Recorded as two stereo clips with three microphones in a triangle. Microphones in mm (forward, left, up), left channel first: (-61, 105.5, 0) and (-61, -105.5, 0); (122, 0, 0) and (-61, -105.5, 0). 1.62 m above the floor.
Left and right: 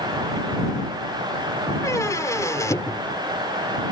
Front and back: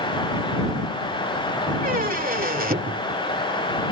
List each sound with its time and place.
1.8 s a squeak: 165° left